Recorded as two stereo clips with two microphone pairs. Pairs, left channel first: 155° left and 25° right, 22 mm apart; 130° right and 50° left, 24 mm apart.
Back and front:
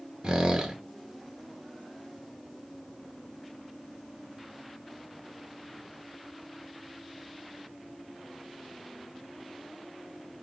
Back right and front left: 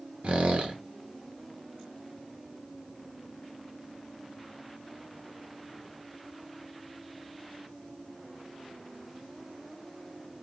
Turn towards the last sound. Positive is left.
turn(degrees=15)